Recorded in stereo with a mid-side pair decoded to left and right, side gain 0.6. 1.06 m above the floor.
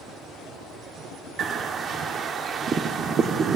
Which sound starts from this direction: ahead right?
A bird, at 1.4 s.